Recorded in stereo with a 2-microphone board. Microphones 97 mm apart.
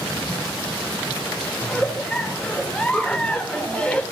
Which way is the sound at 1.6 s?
10° left (ahead or behind).